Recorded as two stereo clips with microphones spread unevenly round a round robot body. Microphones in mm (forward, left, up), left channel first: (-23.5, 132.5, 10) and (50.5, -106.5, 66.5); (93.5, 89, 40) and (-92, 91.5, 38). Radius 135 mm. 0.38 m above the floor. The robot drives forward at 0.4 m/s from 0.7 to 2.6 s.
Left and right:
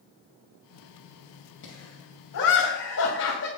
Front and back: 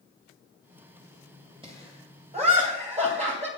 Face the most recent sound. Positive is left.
turn(degrees=130)